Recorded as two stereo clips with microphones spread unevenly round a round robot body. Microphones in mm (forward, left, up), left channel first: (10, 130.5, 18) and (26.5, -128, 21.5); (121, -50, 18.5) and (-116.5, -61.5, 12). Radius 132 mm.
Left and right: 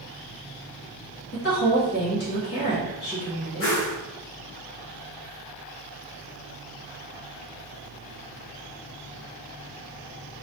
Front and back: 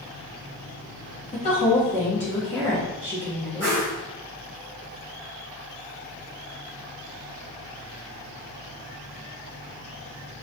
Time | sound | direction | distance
1.3 | a woman speaking | 60° left | 1.2 m
3.6 | a whoosh | 80° left | 1.3 m